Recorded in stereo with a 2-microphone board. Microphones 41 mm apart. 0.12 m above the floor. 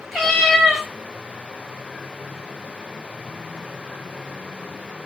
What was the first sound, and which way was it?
A cat meowing, 10° left (ahead or behind).